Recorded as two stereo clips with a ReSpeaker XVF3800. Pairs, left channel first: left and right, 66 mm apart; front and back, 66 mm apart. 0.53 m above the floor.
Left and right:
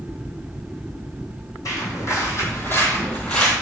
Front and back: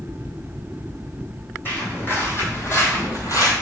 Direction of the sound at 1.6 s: 60° left.